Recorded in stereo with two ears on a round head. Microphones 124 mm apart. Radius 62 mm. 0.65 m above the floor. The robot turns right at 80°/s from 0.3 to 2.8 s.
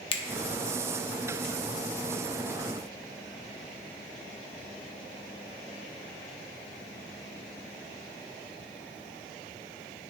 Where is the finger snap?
40° left (ahead or behind), 0.8 m.